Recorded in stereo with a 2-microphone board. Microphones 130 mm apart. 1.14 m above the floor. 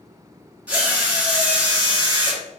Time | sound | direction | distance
0.7 | a drill | 10° right (ahead or behind) | 1.6 m